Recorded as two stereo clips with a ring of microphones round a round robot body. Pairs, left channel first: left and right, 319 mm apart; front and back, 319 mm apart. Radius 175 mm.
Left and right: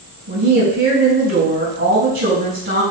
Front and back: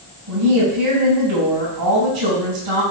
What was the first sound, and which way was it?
A woman speaking, 145° right.